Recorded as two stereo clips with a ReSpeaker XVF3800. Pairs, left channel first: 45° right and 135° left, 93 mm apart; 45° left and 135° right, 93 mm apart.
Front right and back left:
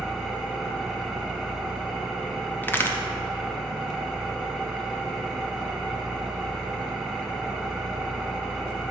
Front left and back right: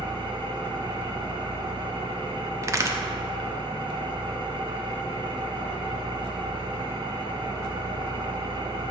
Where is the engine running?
130° right, 1.1 m.